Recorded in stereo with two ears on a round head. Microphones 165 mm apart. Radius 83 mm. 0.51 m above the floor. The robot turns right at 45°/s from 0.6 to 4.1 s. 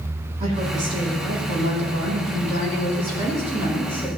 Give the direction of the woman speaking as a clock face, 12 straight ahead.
5 o'clock.